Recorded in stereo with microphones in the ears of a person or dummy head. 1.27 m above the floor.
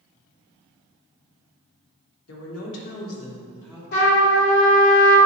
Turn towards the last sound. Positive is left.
turn(degrees=60)  # may be behind; listen again after turning